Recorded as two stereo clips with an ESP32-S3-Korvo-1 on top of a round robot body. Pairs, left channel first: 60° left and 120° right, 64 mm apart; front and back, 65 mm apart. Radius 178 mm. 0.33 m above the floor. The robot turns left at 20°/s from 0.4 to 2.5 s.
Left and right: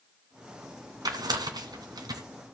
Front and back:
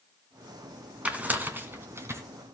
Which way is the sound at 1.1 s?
110° right.